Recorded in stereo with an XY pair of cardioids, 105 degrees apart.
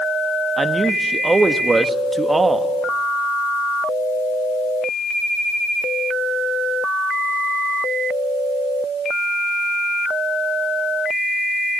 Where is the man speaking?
20° right, 1.5 m.